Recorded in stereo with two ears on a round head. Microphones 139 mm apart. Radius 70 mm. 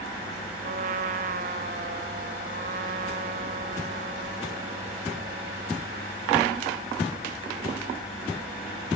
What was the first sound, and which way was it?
A trumpet, 55° right (ahead or behind).